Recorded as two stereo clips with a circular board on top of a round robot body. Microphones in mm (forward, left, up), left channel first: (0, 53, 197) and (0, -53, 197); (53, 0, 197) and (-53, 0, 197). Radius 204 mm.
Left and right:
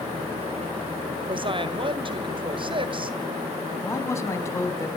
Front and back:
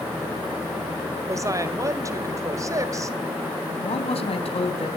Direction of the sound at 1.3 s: 120° right.